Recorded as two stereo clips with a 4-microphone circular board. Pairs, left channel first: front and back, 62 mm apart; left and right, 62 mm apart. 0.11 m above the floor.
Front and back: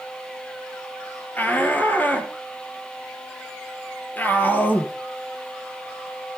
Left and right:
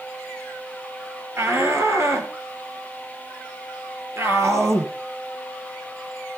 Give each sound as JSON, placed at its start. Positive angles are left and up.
{"t": 1.4, "sound": "a shout", "azimuth_deg": -55, "distance_m": 2.5}